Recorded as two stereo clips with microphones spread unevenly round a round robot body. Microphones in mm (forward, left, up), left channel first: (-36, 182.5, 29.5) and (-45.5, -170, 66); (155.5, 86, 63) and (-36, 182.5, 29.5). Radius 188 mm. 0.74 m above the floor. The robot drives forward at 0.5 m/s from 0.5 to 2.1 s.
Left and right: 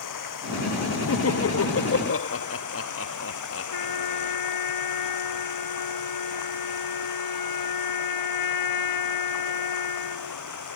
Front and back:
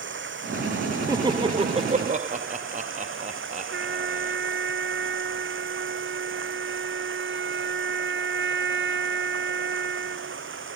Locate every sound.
0.0 s running water: 125° left; by 10.8 s 130° left
1.1 s laughter: 95° left; by 4.4 s 120° left
3.7 s a trumpet: 120° left